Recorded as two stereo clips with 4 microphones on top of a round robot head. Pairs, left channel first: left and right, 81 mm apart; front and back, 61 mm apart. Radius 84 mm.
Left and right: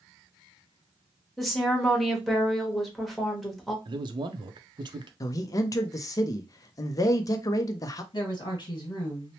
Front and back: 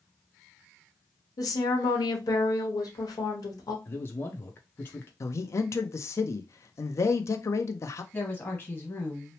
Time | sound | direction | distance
1.4 | a woman speaking | straight ahead | 1.1 m
3.9 | a man speaking | 60° right | 0.5 m
5.2 | a man speaking | 40° left | 0.5 m
8.1 | a woman speaking | 60° left | 1.4 m